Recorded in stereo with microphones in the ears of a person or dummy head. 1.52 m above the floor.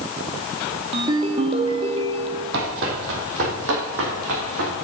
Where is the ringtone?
30° right (ahead or behind), 1.9 m.